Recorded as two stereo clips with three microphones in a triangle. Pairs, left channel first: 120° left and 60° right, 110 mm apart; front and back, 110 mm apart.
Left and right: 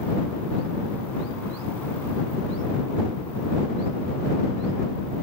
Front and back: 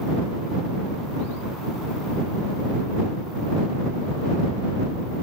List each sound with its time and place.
Only background noise.